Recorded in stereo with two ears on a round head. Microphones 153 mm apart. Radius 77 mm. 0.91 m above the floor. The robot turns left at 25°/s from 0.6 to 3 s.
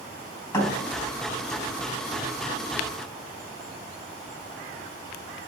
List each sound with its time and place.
0.5 s a thud: 15° left (ahead or behind), 3.5 m; by 0.7 s 20° left (ahead or behind), 3.5 m